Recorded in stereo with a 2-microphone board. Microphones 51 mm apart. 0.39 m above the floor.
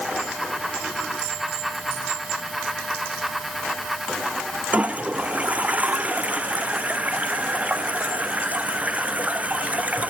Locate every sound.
4.7 s a toilet flushing: 30° right (ahead or behind)